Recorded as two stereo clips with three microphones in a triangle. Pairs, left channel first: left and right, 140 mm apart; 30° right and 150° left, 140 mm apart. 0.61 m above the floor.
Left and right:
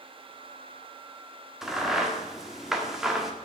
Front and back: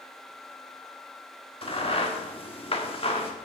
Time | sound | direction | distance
1.6 | a crack | 5° right | 1.4 m